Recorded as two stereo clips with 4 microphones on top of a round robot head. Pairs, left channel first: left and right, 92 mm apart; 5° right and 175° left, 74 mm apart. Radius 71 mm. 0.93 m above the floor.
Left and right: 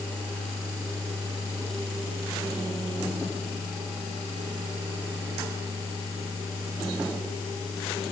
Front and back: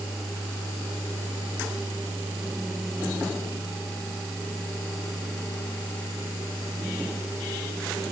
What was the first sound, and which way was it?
Only background noise.